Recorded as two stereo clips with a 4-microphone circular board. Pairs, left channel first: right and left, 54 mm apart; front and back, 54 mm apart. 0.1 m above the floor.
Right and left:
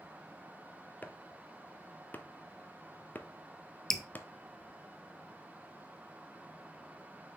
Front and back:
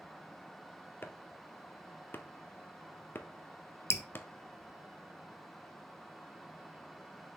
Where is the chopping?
40° right, 0.6 m.